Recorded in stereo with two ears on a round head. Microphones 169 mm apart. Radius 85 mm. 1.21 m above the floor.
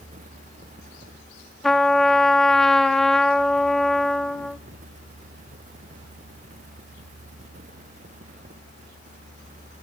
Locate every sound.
1.6 s a trumpet: 5° left (ahead or behind), 1.2 m